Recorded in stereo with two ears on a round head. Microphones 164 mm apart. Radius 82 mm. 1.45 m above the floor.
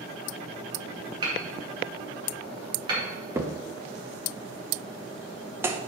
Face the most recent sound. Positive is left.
turn(degrees=-15)  # may be behind; listen again after turning